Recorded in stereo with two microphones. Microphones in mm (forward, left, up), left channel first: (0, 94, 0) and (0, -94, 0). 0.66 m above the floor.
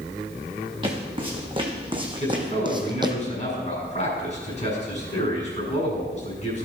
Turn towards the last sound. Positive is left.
turn(degrees=40)  # may be behind; listen again after turning